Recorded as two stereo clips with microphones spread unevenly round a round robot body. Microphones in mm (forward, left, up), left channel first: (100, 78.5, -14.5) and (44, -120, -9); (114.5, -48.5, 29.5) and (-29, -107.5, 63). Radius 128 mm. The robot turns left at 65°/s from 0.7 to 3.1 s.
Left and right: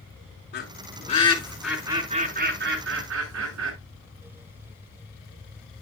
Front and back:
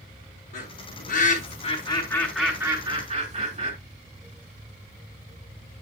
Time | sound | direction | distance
0.5 | a bird | 45° left | 4.5 m